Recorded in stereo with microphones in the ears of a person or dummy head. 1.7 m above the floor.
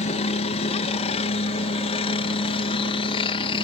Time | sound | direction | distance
0.0 | a helicopter | 35° left (ahead or behind) | ?